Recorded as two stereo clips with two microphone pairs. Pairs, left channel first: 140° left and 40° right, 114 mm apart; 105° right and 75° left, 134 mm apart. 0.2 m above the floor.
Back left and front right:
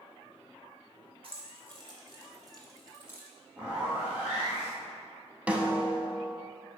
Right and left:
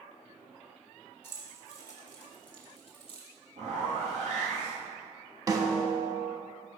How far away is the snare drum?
About 0.7 m.